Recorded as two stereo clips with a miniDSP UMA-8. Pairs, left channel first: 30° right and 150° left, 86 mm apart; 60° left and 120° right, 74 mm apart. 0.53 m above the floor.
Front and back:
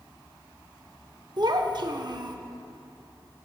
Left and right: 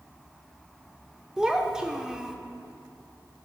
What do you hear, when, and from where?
1.4 s a child speaking: 160° left, 0.7 m